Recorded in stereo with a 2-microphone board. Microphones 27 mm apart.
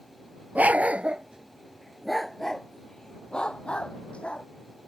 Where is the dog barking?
70° right (ahead or behind); by 4.5 s 45° left (ahead or behind).